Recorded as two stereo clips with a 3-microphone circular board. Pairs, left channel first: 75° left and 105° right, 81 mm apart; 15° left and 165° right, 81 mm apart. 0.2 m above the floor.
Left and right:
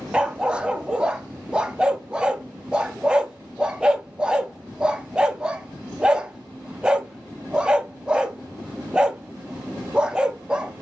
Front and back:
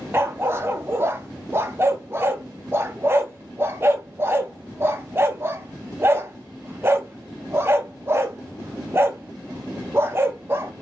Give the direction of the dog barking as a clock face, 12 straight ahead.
6 o'clock.